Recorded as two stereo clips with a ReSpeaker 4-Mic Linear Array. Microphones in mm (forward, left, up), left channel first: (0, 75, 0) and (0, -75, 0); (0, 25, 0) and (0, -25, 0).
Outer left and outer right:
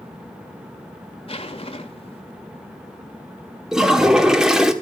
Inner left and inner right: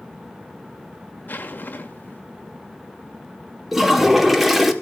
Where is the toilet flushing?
5° right (ahead or behind), 1.4 m.